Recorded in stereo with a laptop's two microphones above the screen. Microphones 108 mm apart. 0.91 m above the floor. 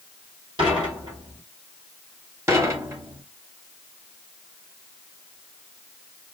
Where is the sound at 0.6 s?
50° right (ahead or behind), 4 m.